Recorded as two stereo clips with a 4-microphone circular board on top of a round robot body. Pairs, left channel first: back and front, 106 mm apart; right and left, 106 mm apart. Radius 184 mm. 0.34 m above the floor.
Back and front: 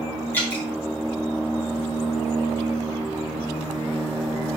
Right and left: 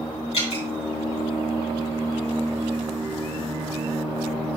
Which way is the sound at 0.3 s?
110° right.